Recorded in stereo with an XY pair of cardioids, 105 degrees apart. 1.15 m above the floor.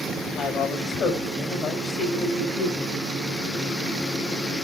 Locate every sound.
0.3 s a woman speaking: 60° left, 4.5 m